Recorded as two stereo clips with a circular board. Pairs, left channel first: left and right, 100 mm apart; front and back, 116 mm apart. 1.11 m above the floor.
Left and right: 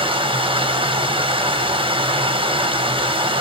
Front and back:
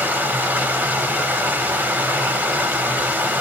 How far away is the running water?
About 0.9 m.